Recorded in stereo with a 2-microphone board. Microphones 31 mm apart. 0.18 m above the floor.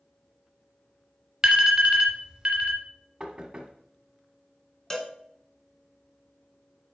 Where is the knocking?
20° right (ahead or behind), 1.1 m.